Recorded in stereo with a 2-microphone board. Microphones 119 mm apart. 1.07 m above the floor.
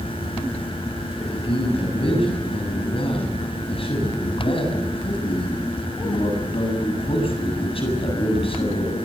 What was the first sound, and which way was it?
A man speaking, 50° left (ahead or behind).